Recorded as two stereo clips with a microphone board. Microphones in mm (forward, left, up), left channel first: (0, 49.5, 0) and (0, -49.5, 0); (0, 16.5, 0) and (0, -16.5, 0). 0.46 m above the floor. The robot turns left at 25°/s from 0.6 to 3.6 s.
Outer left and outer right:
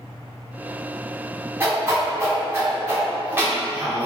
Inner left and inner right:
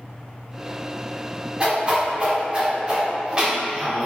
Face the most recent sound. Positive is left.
turn(degrees=-20)  # may be behind; listen again after turning